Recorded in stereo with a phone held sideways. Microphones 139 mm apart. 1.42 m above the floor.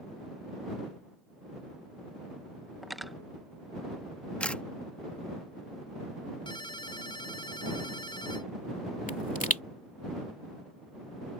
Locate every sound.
2.8 s cutlery clinking: centre (ahead or behind)
4.4 s a camera shutter: 10° left (ahead or behind)
6.5 s a ringtone: 35° left (ahead or behind)
9.1 s a pop: 70° left (ahead or behind)